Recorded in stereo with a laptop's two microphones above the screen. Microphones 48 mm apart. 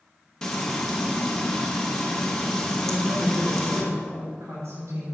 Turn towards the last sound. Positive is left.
turn(degrees=-80)